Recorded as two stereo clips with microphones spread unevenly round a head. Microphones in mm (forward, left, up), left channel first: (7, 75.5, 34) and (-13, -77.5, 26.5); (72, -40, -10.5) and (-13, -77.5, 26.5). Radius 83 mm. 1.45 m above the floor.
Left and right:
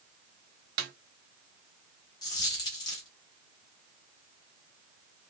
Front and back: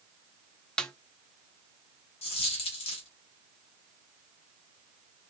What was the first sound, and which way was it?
A snare drum, 70° right.